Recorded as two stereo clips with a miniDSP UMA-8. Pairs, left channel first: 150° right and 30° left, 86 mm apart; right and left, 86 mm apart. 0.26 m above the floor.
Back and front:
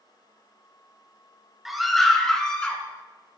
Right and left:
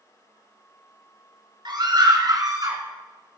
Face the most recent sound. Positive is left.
turn(degrees=135)